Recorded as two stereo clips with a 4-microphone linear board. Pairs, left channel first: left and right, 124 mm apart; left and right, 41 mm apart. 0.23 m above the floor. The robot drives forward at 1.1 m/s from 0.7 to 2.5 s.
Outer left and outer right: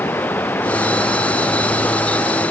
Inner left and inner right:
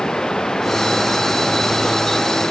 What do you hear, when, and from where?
0.0 s running water: 15° left (ahead or behind); by 2.5 s 10° left (ahead or behind)